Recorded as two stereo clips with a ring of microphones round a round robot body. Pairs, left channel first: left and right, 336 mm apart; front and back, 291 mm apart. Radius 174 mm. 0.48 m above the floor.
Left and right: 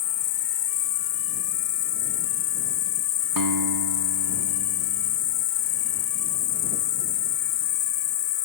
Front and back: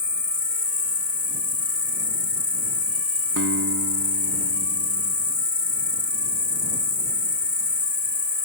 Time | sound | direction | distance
0.0 | an insect | 50° left | ?
3.4 | a guitar | 120° right | ?